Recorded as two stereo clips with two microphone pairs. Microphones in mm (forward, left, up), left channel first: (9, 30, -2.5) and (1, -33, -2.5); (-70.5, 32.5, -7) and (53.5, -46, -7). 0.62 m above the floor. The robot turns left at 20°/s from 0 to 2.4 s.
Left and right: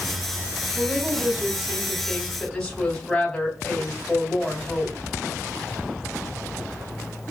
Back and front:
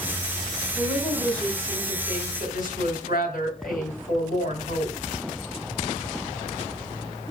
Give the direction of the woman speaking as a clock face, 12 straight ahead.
5 o'clock.